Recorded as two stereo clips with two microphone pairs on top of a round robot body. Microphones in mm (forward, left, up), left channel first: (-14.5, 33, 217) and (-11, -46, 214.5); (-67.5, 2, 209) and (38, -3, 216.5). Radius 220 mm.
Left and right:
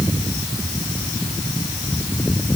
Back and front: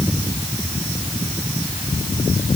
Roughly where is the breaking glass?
I don't hear breaking glass.